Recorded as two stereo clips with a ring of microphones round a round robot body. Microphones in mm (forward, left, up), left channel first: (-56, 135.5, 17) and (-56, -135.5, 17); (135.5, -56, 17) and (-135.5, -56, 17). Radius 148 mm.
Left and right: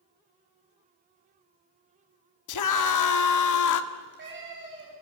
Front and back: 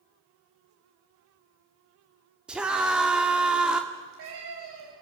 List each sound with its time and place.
2.5 s a scream: 95° left, 1.9 m
3.9 s a cat meowing: 140° right, 10 m